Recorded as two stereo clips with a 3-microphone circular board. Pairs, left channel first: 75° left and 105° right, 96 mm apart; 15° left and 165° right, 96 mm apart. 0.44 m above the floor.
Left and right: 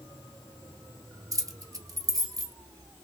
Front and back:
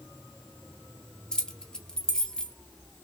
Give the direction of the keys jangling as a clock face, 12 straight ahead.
2 o'clock.